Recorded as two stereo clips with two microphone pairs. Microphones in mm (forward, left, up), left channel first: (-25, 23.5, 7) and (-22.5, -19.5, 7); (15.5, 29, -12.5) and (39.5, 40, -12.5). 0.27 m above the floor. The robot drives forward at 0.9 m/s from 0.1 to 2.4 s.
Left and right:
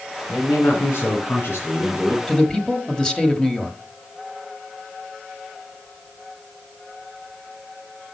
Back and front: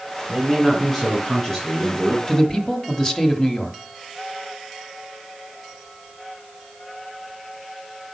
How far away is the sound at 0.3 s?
About 3 m.